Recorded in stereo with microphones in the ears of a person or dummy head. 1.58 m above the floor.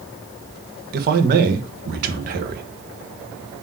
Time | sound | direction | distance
0.9 | a man speaking | 50° right (ahead or behind) | 1.3 m